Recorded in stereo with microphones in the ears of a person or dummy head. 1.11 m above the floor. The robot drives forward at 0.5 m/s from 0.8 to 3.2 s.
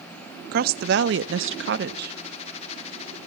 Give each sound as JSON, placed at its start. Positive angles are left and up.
{"t": 0.5, "sound": "a woman speaking", "side_deg": -55, "distance_m": 0.7}